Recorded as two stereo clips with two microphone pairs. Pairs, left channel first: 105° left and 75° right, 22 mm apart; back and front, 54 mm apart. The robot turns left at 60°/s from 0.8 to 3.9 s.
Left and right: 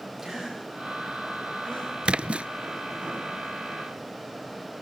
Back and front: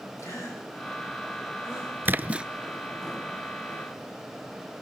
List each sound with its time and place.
0.2 s a gasp: 160° right, 8.5 m; by 2.0 s 130° left, 8.5 m
2.0 s a splash: 45° right, 0.5 m; by 2.5 s 70° right, 0.5 m